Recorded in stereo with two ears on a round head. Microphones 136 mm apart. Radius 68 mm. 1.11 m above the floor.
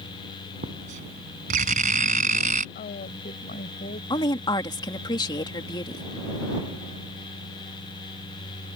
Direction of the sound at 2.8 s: 50° left (ahead or behind).